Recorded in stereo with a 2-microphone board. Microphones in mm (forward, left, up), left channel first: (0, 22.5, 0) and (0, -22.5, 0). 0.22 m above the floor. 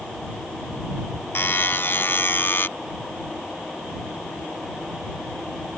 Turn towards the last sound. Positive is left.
turn(degrees=55)  # may be behind; listen again after turning